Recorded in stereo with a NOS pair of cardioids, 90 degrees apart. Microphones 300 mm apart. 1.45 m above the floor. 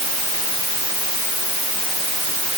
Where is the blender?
No blender in this recording.